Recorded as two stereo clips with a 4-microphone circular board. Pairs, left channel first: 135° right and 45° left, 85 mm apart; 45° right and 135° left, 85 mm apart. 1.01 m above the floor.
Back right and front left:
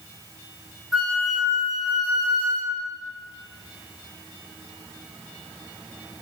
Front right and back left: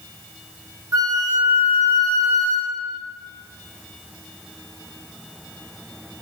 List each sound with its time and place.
0.9 s a flute: 130° left, 0.8 m